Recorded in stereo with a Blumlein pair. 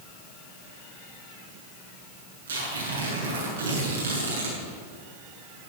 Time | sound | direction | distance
2.5 | tearing paper | 65° right | 7.5 m